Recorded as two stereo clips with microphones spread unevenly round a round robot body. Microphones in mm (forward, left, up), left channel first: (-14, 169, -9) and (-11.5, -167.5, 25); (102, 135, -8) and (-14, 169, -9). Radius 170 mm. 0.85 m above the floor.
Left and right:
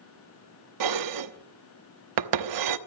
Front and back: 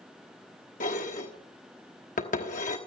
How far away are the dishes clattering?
About 1.1 m.